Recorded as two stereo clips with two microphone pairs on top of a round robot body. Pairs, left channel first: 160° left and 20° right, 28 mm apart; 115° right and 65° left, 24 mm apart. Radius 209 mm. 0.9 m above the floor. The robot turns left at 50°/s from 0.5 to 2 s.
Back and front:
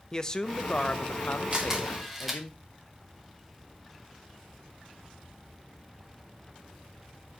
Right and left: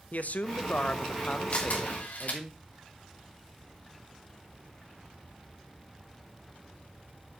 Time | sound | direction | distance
0.1 | a man speaking | 135° right | 1.1 m
1.5 | a camera shutter | 80° right | 3 m